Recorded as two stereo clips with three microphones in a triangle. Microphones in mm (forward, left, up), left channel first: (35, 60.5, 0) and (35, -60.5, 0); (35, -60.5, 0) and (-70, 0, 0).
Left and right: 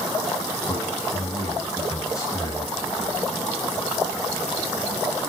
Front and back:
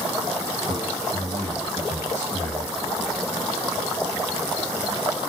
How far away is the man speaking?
About 7 m.